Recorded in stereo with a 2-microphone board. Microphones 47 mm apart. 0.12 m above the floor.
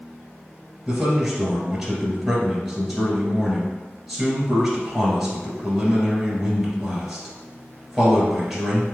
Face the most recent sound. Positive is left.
turn(degrees=0)  # may be behind; listen again after turning